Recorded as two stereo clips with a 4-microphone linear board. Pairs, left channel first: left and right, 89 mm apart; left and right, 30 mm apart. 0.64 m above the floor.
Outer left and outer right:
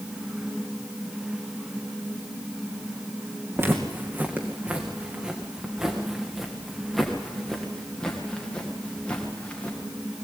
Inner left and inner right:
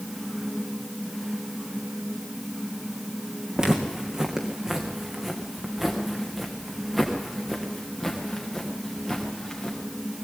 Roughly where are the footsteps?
Right.